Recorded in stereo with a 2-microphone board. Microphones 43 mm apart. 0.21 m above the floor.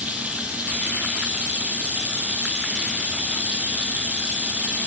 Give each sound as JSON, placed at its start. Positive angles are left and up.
{"t": 0.0, "sound": "running water", "side_deg": -35, "distance_m": 4.0}